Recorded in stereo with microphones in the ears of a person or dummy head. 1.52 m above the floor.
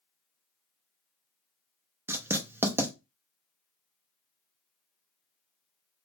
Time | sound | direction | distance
2.1 | writing | 10° right (ahead or behind) | 0.7 m